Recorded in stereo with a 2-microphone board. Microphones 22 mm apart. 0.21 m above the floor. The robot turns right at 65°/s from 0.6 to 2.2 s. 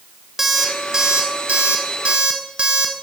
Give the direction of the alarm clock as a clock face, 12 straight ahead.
6 o'clock.